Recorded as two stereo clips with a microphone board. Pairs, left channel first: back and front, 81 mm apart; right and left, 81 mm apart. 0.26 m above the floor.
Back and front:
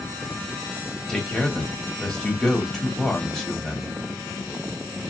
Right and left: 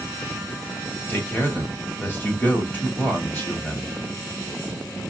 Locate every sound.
1.1 s a man speaking: 105° right, 1.2 m